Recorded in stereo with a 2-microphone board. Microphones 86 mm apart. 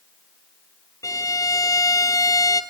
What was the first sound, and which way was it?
A violin, 45° left (ahead or behind).